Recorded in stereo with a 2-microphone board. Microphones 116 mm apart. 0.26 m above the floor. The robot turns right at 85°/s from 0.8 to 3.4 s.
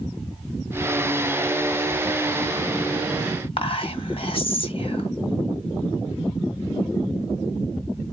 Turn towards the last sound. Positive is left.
turn(degrees=50)  # may be behind; listen again after turning